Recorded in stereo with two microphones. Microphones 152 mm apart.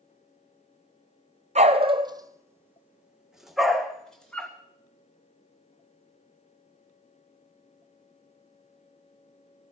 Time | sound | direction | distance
1.6 | a dog barking | 50° right (ahead or behind) | 0.8 m